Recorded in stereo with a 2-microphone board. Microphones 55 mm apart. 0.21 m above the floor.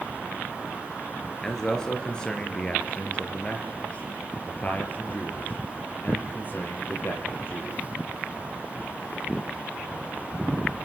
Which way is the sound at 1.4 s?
10° left (ahead or behind).